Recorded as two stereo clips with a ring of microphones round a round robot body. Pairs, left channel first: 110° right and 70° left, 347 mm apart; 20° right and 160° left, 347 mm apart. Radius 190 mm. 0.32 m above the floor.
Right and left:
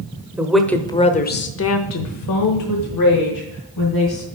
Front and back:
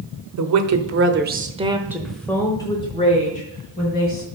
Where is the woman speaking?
150° left, 1.2 m; by 4.2 s 85° right, 2.5 m.